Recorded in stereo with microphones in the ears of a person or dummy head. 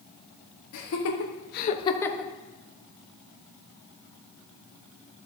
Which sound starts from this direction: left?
Laughter, at 0.7 s.